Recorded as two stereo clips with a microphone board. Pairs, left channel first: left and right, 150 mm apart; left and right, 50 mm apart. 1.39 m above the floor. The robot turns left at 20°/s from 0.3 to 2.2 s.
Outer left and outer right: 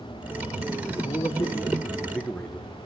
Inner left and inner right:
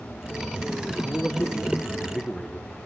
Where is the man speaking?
35° left (ahead or behind), 1.5 m; by 2.8 s 10° left (ahead or behind), 1.5 m.